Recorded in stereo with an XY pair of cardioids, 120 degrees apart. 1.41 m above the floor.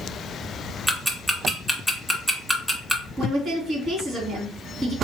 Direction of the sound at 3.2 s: 45° right.